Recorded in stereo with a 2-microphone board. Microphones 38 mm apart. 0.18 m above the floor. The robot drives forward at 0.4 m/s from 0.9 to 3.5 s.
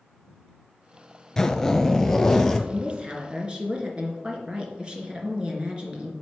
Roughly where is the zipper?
Centre.